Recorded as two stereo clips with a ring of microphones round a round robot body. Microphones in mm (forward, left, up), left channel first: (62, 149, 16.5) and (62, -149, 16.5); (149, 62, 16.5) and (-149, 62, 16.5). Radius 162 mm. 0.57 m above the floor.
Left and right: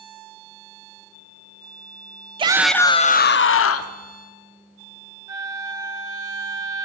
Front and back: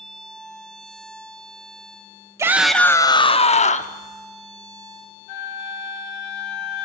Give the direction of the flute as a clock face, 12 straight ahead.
12 o'clock.